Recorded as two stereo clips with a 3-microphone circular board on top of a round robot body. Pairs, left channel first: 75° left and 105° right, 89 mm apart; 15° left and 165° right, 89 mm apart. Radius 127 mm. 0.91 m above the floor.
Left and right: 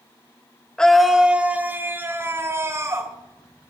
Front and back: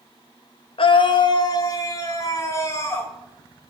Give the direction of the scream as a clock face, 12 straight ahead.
12 o'clock.